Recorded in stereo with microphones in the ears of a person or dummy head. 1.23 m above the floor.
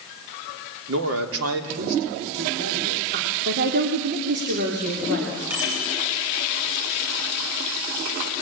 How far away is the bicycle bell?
About 8 m.